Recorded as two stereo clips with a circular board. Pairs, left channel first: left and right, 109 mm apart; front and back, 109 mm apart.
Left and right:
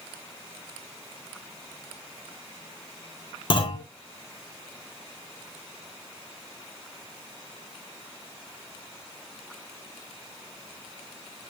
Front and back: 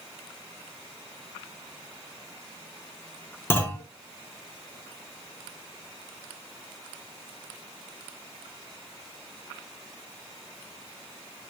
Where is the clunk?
65° left, 2.5 m.